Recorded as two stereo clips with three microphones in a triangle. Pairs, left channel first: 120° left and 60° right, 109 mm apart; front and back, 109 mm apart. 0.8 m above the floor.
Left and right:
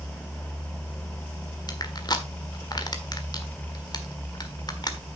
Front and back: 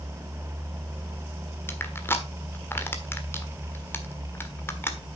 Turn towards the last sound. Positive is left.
turn(degrees=70)